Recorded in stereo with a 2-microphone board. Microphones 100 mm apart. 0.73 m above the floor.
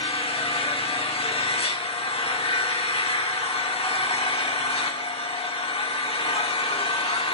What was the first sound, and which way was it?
An engine running, 75° left (ahead or behind).